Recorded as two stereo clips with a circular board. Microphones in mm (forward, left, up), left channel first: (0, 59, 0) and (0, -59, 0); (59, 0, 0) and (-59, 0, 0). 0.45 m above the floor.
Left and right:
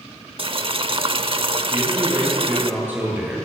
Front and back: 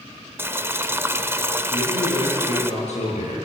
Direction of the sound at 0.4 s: 115° right.